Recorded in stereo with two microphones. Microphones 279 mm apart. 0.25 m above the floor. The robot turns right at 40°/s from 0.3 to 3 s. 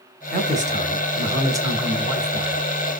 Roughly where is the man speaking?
Right.